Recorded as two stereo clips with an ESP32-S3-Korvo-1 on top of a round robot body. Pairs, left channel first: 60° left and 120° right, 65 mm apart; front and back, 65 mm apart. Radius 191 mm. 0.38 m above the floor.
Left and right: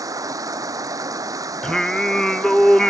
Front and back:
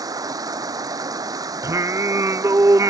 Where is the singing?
140° left.